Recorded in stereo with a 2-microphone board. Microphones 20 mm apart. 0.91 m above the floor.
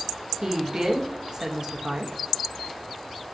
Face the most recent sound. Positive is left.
turn(degrees=-35)  # may be behind; listen again after turning